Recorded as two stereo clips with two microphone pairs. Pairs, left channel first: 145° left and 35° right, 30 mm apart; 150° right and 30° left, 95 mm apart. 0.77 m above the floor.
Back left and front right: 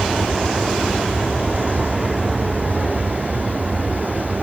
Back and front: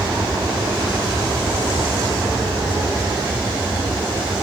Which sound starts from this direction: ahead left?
An aircraft, at 0.0 s.